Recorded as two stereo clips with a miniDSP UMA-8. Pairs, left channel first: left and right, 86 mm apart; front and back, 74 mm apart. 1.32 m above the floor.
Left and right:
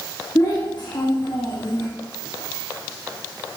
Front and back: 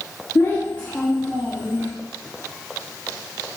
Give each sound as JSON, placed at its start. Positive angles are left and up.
{"t": 0.3, "sound": "a child speaking", "azimuth_deg": 45, "distance_m": 1.2}